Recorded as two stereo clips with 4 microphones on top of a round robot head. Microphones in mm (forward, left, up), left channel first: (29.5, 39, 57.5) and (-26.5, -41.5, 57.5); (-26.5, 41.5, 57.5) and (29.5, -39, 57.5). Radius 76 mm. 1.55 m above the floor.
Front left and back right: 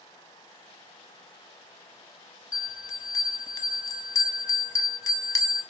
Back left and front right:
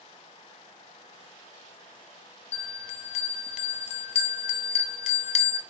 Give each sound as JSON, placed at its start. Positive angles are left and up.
{"t": 2.5, "sound": "a bell", "azimuth_deg": 115, "distance_m": 0.7}